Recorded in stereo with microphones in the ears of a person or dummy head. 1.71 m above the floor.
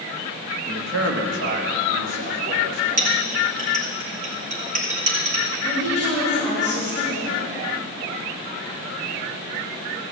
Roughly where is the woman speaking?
Right.